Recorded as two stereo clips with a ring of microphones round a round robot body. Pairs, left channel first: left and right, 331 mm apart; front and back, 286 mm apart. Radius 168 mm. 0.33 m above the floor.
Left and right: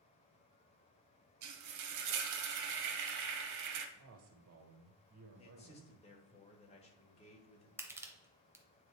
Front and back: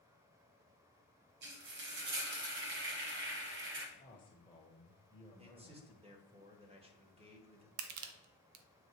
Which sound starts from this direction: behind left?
A man speaking, at 5.4 s.